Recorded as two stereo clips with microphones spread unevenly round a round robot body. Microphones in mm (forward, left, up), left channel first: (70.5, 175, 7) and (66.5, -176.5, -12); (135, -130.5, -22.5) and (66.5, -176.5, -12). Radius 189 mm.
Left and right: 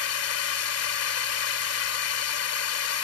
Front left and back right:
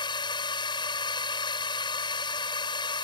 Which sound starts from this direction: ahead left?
A drone, at 0.0 s.